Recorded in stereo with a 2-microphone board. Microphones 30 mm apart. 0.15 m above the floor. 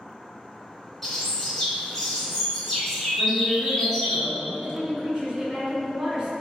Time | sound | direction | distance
1.0 | a bird | 5° left (ahead or behind) | 1.8 m
3.2 | a woman speaking | 10° right (ahead or behind) | 1.9 m
4.5 | a woman speaking | 35° right (ahead or behind) | 1.6 m